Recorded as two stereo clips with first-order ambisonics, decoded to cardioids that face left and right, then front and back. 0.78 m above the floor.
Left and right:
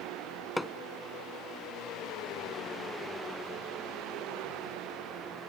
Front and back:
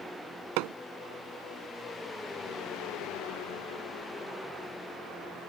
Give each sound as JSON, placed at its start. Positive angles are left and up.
{"t": 0.6, "sound": "hammering", "azimuth_deg": 170}